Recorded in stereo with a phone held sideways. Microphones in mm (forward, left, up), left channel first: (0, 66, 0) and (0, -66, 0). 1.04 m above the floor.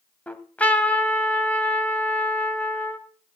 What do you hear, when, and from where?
0.3 s a trumpet: 10° left (ahead or behind), 1.8 m